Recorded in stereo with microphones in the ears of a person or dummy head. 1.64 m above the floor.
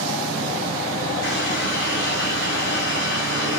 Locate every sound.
1.2 s a running tap: 65° left (ahead or behind), 7 m